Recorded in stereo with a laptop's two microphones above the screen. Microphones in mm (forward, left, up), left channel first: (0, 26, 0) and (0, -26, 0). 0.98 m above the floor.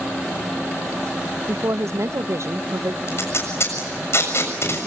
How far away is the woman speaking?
About 0.5 m.